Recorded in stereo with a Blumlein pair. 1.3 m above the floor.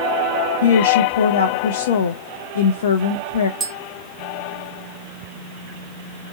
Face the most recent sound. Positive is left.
turn(degrees=-15)